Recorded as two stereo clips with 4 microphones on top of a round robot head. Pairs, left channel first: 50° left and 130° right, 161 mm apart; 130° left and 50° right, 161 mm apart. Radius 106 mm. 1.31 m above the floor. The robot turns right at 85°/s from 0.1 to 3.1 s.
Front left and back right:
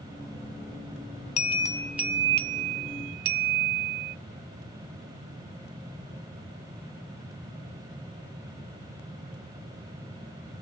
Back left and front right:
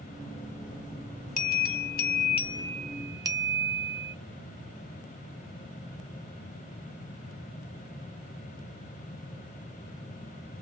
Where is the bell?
95° left, 1.2 m; by 4.2 s 115° right, 1.2 m.